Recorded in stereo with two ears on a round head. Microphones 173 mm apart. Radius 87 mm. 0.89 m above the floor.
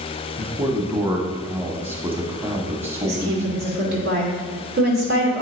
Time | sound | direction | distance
0.4 | a man speaking | 10° right (ahead or behind) | 1.2 m
3.0 | a woman speaking | 60° right (ahead or behind) | 2.5 m